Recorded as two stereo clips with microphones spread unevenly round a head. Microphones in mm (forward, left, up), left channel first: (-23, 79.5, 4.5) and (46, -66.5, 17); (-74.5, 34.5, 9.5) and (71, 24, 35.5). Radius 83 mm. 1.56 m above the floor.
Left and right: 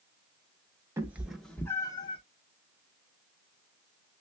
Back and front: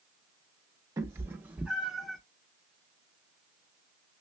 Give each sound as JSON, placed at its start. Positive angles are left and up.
{"t": 1.0, "sound": "a cat meowing", "azimuth_deg": -15, "distance_m": 0.8}